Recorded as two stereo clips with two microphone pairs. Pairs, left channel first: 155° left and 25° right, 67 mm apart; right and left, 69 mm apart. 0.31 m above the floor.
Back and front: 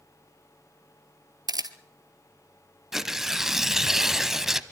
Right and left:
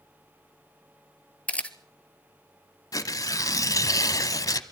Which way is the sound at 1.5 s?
20° right.